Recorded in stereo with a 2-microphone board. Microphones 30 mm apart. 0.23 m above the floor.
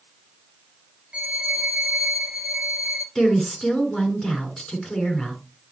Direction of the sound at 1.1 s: 35° right (ahead or behind).